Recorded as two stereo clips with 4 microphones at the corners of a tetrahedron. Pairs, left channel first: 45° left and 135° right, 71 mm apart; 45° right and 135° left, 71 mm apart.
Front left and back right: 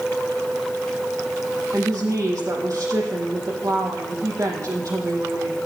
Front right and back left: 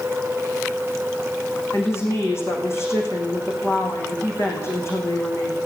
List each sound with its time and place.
1.7 s a woman speaking: 95° right, 5.5 m